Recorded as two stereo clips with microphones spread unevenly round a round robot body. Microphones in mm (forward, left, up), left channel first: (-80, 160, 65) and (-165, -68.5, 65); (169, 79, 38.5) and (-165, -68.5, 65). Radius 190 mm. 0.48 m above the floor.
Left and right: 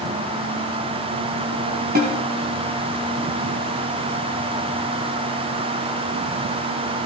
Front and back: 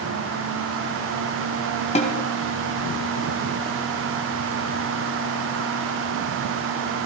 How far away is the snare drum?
About 2 m.